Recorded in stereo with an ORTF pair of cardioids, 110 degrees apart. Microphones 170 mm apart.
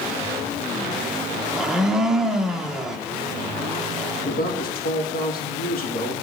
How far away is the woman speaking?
About 2.5 m.